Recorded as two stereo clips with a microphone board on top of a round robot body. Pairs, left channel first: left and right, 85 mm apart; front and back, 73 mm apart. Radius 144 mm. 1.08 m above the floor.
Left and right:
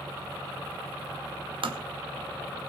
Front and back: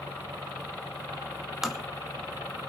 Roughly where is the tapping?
Right.